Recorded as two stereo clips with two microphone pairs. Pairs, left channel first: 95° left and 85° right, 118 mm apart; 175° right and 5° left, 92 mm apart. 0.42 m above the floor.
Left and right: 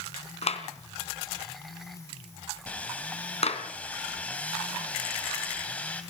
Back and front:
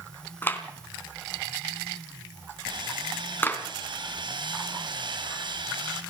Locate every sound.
0.4 s a clap: 115° left, 3 m
2.7 s sawing: 20° left, 3 m